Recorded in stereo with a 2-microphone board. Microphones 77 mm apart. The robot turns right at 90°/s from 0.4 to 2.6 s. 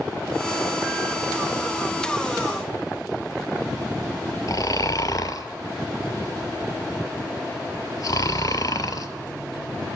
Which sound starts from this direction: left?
Snoring, at 4.5 s.